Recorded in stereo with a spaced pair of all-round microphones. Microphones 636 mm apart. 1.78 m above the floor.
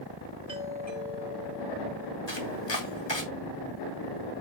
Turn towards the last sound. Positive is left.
turn(degrees=45)  # may be behind; listen again after turning